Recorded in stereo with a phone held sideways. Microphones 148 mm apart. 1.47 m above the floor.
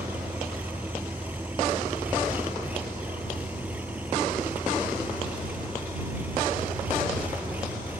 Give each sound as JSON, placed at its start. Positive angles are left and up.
{"t": 0.0, "sound": "an engine running", "side_deg": -10}